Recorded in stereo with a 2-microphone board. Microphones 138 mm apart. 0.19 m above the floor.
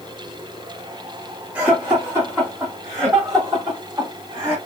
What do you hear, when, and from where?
1.6 s laughter: 10° right (ahead or behind), 1.5 m; by 4.5 s 25° right (ahead or behind), 2 m